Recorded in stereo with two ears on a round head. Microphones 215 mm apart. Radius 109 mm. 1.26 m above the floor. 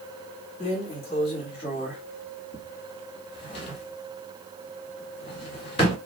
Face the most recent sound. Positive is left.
turn(degrees=25)  # may be behind; listen again after turning